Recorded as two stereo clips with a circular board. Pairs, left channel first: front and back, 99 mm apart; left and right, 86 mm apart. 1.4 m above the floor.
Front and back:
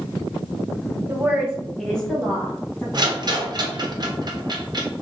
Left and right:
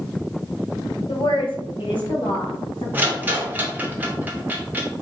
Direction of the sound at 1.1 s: 115° left.